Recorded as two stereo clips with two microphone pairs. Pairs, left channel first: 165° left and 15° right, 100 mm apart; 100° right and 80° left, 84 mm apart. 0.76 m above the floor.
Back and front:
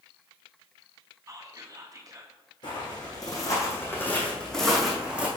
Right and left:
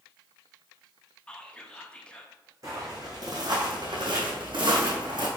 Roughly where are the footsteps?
Behind left.